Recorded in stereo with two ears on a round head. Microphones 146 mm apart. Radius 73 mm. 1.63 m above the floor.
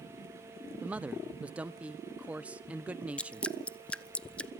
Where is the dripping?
5° left (ahead or behind), 0.8 m.